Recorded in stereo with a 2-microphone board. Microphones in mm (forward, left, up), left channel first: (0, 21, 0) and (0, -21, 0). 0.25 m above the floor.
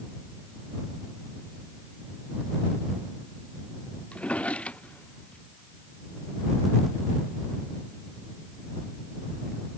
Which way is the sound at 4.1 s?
35° left (ahead or behind).